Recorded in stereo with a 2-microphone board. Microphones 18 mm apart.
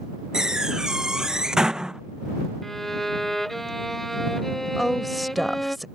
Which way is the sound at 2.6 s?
15° left (ahead or behind).